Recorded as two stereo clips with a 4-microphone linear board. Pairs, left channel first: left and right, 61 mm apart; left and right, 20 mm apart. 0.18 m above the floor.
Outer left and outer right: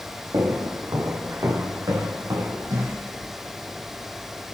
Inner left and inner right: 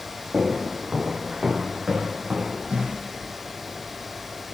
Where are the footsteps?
80° right, 3.5 m; by 3.0 s 90° right, 5 m.